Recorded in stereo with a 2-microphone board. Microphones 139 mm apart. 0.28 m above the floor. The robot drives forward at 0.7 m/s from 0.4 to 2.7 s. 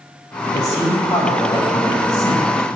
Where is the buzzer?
I don't hear a buzzer.